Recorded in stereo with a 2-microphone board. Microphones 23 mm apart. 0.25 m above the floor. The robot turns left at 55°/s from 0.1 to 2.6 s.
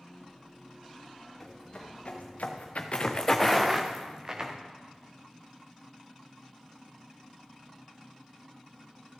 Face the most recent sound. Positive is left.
turn(degrees=-30)  # may be behind; listen again after turning